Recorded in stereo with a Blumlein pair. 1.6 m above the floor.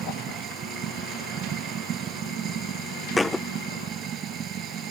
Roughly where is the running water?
Ahead right.